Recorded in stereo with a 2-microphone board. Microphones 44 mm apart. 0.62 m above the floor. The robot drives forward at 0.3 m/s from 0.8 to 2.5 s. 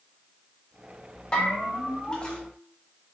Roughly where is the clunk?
No clunk in this recording.